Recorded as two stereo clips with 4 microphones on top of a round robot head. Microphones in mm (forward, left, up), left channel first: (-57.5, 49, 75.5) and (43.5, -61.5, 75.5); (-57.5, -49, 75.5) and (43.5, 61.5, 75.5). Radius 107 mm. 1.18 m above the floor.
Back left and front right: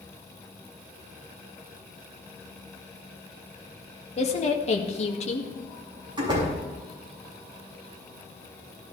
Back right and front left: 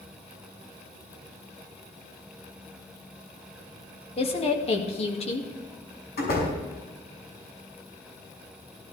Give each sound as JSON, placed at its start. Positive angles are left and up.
{"t": 4.2, "sound": "a woman speaking", "azimuth_deg": 180, "distance_m": 2.0}
{"t": 6.2, "sound": "a door slam", "azimuth_deg": -110, "distance_m": 6.5}